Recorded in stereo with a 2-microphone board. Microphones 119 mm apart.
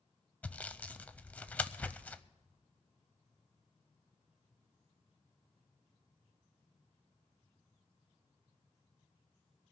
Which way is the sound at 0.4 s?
10° left (ahead or behind).